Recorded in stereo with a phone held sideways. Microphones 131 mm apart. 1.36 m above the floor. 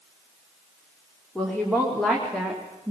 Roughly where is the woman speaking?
Centre.